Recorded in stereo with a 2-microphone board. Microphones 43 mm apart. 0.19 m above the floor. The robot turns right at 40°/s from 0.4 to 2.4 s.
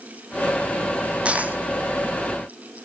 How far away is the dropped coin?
About 1.6 m.